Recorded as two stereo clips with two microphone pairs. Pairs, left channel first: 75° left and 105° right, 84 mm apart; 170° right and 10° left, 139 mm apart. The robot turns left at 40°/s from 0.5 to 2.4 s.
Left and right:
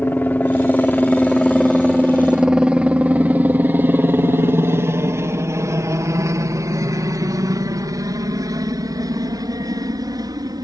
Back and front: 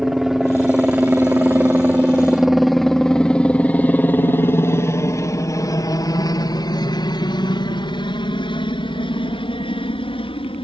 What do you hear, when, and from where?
0.0 s a helicopter: 95° left; by 10.7 s 130° right